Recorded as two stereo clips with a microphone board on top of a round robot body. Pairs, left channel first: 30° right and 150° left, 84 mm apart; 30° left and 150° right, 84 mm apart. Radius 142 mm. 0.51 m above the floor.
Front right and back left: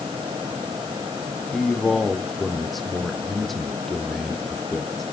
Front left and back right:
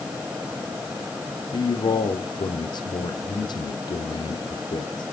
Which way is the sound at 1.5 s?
60° left.